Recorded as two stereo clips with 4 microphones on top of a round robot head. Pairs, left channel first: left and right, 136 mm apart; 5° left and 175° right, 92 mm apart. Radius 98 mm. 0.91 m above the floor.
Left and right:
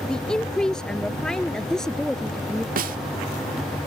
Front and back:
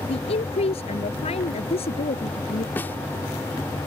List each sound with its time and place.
0.1 s a woman speaking: 5° left
2.8 s a snare drum: 70° right